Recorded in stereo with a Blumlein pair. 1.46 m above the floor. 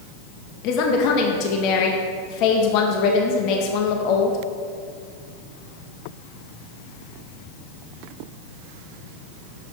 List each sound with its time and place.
0.6 s a woman speaking: 40° left, 0.8 m